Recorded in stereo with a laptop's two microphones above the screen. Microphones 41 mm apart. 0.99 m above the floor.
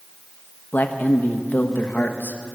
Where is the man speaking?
55° left (ahead or behind), 1.1 m.